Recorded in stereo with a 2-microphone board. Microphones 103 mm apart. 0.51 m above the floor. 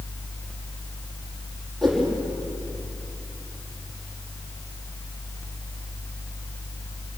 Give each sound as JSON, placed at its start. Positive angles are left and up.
{"t": 1.8, "sound": "a whoosh", "side_deg": 0, "distance_m": 5.5}